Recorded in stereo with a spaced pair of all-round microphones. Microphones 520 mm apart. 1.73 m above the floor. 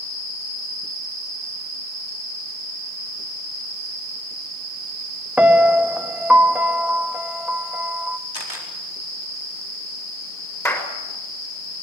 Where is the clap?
5° left (ahead or behind), 6 m.